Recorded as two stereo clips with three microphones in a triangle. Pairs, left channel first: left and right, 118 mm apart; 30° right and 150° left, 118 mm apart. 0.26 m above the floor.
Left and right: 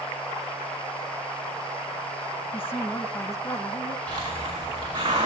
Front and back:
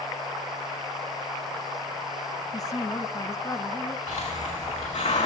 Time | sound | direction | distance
2.5 | a woman speaking | 20° left | 1.9 m
4.1 | a hiss | 35° right | 7 m